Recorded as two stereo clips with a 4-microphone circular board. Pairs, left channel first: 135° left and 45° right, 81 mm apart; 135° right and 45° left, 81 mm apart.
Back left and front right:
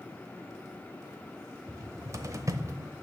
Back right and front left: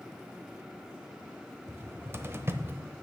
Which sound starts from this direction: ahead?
A cupboard door, at 1.7 s.